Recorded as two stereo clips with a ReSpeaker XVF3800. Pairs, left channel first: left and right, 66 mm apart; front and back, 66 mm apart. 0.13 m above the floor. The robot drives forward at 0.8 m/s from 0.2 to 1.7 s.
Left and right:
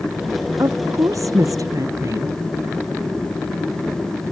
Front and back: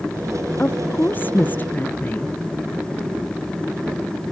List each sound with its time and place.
0.6 s a woman speaking: 60° right; by 2.3 s 65° right